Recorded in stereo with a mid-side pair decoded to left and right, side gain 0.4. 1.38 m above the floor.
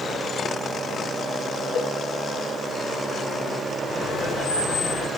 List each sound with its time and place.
1.8 s a cowbell: 60° left, 1.3 m
3.9 s laughter: 60° left, 4 m